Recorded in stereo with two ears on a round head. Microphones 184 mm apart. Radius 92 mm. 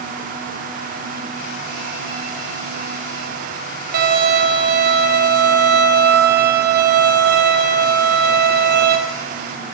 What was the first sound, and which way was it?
A violin, 50° right (ahead or behind).